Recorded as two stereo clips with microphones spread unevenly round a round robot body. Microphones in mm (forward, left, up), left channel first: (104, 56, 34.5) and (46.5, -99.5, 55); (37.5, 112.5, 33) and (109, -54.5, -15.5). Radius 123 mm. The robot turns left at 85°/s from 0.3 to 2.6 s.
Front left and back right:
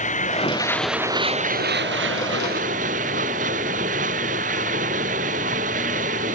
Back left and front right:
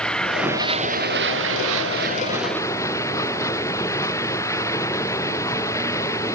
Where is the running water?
30° left; by 6.4 s 170° right.